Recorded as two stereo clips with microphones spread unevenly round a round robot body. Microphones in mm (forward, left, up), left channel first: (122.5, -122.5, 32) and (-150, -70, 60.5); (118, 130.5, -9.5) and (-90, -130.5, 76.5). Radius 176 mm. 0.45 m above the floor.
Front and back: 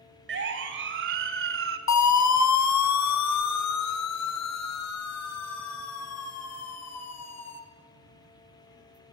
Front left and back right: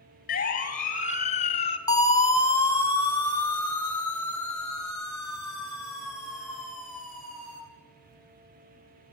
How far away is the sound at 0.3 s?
About 3 m.